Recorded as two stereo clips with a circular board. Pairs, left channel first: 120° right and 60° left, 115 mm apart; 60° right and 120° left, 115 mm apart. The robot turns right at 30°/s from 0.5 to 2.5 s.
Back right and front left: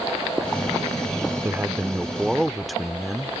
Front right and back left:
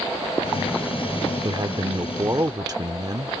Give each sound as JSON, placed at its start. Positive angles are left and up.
{"t": 1.4, "sound": "a man speaking", "azimuth_deg": 120}